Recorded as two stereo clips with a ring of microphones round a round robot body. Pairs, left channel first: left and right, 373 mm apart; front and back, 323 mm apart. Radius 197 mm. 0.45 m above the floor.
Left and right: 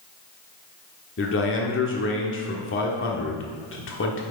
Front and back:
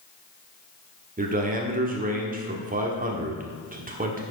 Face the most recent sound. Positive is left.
turn(degrees=130)